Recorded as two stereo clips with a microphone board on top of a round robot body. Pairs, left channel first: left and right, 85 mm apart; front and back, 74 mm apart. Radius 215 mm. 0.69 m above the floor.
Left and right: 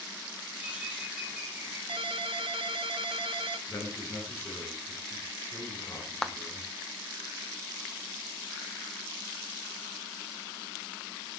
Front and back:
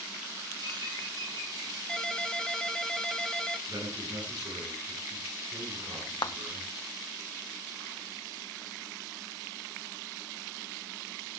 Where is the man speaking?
150° left, 9 m.